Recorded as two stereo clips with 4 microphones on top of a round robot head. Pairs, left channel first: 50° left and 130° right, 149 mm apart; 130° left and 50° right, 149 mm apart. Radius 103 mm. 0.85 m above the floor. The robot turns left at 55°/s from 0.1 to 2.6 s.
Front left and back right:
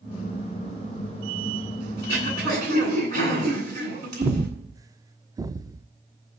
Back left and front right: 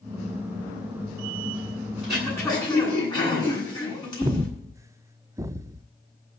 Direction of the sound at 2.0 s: 135° right.